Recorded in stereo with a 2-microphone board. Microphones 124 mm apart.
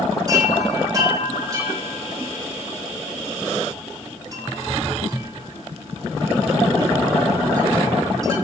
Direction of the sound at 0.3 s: 30° right (ahead or behind).